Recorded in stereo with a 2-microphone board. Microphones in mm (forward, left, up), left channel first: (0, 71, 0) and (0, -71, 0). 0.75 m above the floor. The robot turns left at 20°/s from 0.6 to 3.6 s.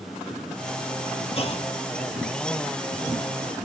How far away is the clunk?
About 1.2 m.